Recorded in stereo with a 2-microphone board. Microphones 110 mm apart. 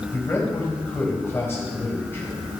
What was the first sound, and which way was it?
A man speaking, 25° left (ahead or behind).